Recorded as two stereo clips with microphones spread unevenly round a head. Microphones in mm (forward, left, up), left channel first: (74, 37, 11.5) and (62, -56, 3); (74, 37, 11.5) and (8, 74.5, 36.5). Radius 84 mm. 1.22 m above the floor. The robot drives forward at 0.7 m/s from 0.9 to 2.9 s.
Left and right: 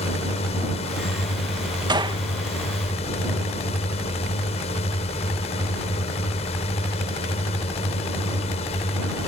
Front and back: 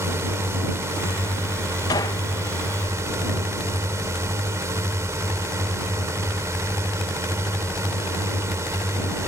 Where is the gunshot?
60° right; by 2.2 s 70° right.